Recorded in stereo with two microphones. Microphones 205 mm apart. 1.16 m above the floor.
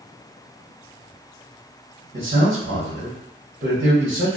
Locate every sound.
2.1 s a man speaking: 60° right (ahead or behind), 1.0 m